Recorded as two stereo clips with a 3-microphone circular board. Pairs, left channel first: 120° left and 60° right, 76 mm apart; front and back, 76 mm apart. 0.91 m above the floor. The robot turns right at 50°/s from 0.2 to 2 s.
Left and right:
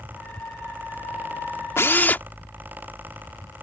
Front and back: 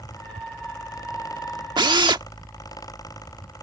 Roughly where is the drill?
Behind.